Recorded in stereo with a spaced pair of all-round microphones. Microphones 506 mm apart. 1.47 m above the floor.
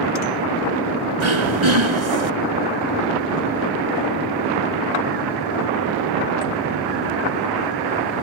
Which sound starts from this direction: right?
Throat clearing, at 1.2 s.